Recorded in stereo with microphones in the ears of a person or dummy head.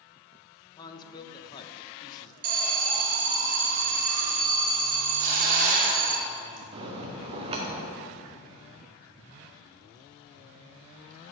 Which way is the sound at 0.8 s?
25° left (ahead or behind).